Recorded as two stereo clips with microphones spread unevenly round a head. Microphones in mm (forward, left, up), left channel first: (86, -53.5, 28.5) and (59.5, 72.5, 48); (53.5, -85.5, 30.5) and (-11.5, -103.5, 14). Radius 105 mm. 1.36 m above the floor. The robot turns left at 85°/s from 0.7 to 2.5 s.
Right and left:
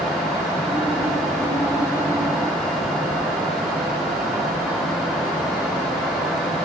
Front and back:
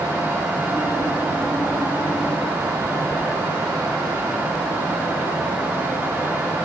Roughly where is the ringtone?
No ringtone in this recording.